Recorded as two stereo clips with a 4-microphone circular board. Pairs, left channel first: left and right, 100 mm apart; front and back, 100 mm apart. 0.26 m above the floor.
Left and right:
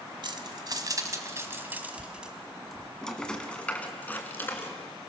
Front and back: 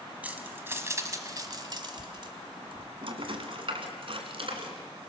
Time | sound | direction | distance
0.2 | keys jangling | 110° right | 1.5 m